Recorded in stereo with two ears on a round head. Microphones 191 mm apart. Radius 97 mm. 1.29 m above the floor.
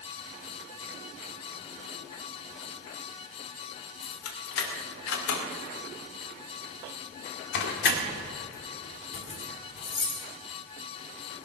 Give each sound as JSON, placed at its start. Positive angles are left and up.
{"t": 4.0, "sound": "keys jangling", "side_deg": 75, "distance_m": 3.0}